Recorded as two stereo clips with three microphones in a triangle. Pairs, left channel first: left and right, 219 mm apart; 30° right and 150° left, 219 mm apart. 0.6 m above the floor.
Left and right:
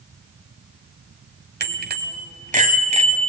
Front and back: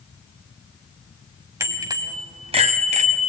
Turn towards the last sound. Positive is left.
turn(degrees=-155)